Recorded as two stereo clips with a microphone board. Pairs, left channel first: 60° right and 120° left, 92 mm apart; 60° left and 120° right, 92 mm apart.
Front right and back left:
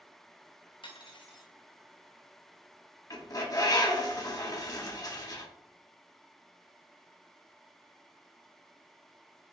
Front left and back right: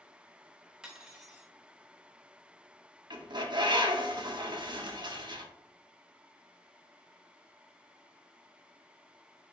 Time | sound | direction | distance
0.8 | cutlery clinking | 35° right | 0.8 m
3.1 | a bird | 100° right | 0.9 m